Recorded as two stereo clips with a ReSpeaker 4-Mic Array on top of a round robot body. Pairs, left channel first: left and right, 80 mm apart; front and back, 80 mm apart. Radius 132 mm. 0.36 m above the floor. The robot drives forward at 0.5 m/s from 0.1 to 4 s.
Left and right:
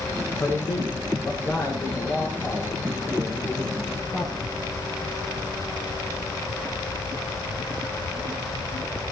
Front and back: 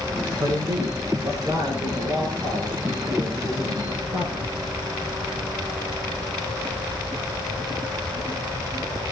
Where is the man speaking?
145° left, 7.5 m; by 4.5 s 150° left, 9 m.